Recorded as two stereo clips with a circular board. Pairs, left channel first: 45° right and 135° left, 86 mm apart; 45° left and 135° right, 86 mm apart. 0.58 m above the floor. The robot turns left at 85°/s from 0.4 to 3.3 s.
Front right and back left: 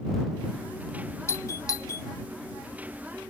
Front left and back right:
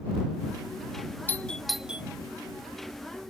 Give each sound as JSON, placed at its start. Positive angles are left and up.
{"t": 1.3, "sound": "a doorbell", "azimuth_deg": -10}